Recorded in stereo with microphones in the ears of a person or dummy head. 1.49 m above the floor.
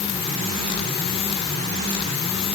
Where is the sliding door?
No sliding door in this recording.